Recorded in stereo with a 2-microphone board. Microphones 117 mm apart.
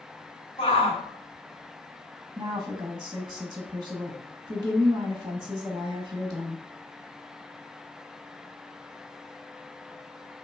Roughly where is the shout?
Left.